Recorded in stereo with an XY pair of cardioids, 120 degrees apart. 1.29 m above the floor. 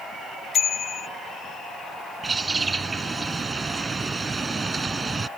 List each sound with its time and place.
0.5 s a bicycle bell: 45° left
2.2 s a bird: 20° right